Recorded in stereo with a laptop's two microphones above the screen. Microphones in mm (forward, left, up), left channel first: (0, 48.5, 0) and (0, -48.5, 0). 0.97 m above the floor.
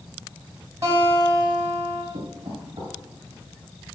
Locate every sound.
0.8 s a guitar: 30° right (ahead or behind), 4 m
2.1 s knocking: 70° right (ahead or behind), 3 m